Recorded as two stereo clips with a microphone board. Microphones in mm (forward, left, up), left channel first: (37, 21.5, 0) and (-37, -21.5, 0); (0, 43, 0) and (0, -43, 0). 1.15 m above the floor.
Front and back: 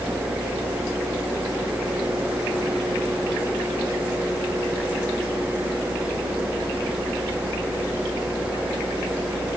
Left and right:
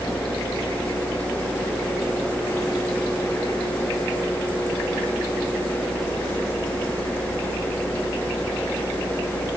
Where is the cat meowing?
I don't hear a cat meowing.